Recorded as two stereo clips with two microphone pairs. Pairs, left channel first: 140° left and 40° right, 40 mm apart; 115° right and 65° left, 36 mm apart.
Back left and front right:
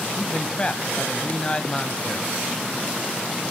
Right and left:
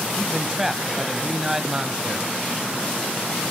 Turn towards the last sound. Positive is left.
turn(degrees=140)